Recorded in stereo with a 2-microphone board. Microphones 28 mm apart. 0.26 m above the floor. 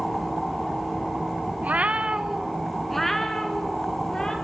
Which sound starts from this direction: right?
A cat meowing, at 1.6 s.